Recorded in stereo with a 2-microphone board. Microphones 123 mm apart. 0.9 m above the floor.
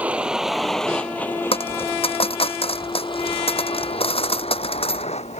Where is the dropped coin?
50° left (ahead or behind).